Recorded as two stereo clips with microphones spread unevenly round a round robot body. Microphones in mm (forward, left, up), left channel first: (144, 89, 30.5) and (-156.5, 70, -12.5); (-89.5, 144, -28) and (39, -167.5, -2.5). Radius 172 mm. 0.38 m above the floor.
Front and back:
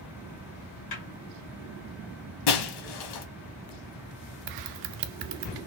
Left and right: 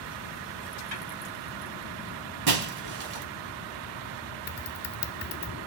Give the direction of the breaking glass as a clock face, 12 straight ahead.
1 o'clock.